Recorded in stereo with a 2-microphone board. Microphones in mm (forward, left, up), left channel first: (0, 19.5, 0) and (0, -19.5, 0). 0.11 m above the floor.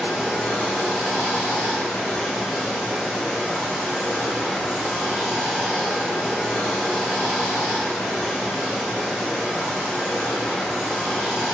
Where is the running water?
30° left (ahead or behind), 1.3 m.